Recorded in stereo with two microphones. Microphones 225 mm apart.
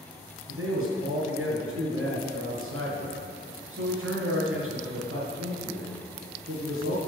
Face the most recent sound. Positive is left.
turn(degrees=-70)  # may be behind; listen again after turning